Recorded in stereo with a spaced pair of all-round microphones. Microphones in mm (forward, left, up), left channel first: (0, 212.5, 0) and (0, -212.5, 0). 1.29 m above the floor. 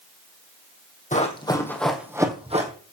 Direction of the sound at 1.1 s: 20° left (ahead or behind).